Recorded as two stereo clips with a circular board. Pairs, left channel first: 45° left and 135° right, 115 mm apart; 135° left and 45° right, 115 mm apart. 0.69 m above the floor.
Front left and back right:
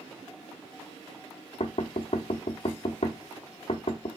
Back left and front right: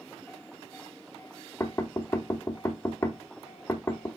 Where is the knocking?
70° left, 1.5 m.